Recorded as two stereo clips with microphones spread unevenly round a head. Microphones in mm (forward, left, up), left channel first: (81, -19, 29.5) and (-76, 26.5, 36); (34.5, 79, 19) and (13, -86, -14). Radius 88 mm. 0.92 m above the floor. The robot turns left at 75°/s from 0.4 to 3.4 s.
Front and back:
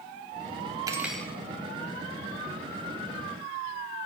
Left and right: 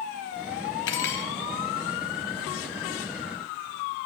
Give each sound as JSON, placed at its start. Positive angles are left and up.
{"t": 0.9, "sound": "cutlery clinking", "azimuth_deg": 95, "distance_m": 0.9}